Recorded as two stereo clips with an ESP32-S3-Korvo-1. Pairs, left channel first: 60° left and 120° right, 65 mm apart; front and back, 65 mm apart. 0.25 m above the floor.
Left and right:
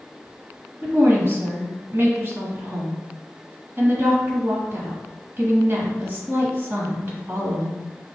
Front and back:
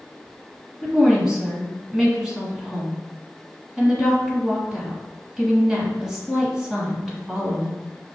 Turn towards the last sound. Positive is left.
turn(degrees=-120)